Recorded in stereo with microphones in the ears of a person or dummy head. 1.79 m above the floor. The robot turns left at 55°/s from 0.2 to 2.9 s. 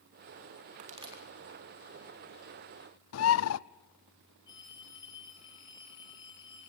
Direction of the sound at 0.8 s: 45° right (ahead or behind).